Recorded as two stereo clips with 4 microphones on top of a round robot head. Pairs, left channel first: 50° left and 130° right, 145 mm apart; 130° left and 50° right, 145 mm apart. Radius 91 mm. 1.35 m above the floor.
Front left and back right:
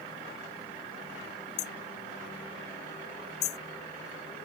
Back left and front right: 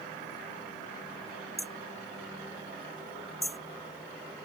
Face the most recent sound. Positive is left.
turn(degrees=40)